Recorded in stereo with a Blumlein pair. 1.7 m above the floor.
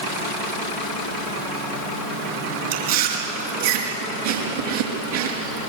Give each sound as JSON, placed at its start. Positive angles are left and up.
{"t": 2.7, "sound": "chewing", "azimuth_deg": -55, "distance_m": 5.0}